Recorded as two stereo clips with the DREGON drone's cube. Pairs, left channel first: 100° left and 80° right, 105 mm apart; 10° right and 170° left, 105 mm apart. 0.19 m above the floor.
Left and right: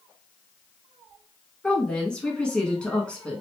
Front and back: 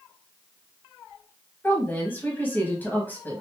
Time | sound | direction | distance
1.6 | a woman speaking | 30° left | 1.1 m